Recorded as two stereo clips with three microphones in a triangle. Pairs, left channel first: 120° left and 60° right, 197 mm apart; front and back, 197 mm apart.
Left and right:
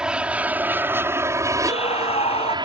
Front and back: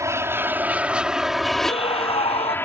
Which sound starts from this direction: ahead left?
A scream, at 1.6 s.